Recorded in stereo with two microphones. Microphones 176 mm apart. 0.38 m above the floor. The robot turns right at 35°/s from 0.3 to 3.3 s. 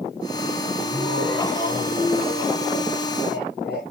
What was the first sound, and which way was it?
Laughter, 10° right.